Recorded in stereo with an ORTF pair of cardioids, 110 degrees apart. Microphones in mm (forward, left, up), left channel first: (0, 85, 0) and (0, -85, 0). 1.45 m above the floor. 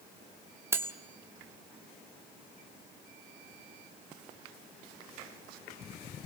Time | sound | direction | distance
0.7 | cutlery clinking | 15° right | 2 m